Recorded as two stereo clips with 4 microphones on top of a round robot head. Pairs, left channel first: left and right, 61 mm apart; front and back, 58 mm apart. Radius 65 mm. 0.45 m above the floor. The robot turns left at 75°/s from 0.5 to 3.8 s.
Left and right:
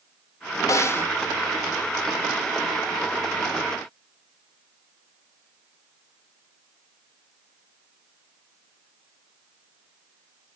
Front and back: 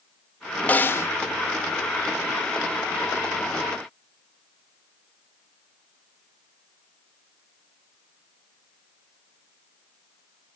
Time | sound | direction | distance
0.7 | a snare drum | 60° left | 0.7 m